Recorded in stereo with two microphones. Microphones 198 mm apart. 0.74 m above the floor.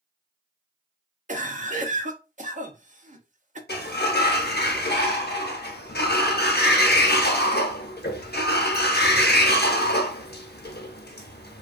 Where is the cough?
40° right (ahead or behind), 0.6 m.